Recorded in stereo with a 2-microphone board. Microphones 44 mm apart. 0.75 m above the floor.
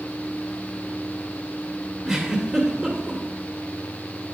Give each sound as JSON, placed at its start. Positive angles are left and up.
{"t": 2.0, "sound": "a giggle", "side_deg": -20, "distance_m": 2.0}